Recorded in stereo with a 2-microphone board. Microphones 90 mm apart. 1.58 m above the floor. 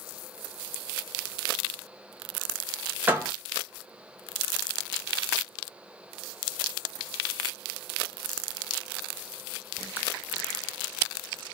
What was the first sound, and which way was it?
A door slam, 20° right (ahead or behind).